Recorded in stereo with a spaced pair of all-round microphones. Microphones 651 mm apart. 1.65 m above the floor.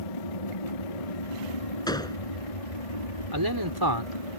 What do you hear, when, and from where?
0.0 s an aircraft: 60° left (ahead or behind)
1.9 s a gunshot: 5° left (ahead or behind)
3.3 s a man speaking: 35° right (ahead or behind)